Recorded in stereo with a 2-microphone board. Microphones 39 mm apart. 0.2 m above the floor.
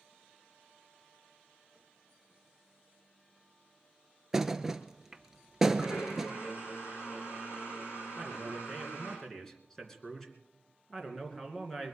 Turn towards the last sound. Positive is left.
turn(degrees=10)  # may be behind; listen again after turning